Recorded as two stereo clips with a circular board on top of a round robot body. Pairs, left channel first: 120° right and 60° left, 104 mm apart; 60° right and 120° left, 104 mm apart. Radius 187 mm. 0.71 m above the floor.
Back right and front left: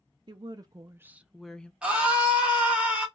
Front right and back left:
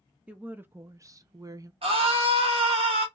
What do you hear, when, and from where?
0.3 s a woman speaking: 45° left, 0.7 m; by 1.7 s 165° left, 0.7 m
1.8 s a scream: 140° left, 0.9 m